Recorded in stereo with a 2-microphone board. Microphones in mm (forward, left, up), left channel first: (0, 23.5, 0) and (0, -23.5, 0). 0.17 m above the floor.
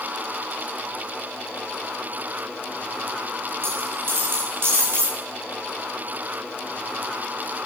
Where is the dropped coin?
60° right (ahead or behind), 9 m.